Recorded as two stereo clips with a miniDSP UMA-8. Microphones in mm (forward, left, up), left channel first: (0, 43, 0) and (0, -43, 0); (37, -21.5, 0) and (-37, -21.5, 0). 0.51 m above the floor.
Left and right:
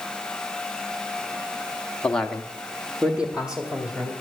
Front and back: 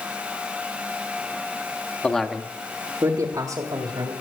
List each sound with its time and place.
2.0 s a man speaking: 35° left, 1.0 m; by 4.1 s 165° right, 3 m